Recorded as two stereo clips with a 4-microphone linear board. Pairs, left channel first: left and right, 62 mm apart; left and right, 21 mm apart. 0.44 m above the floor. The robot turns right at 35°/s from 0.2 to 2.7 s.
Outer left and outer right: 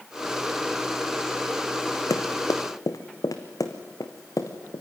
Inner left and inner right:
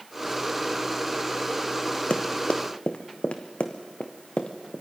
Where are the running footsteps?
70° left (ahead or behind), 1.8 m; by 4.8 s 65° left (ahead or behind), 3 m.